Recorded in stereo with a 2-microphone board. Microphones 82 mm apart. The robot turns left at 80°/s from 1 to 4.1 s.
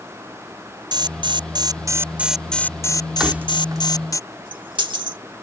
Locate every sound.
0.9 s an alarm: 70° right; by 4.2 s 45° left
3.2 s keys jangling: 5° right (ahead or behind); by 5.2 s 75° right (ahead or behind)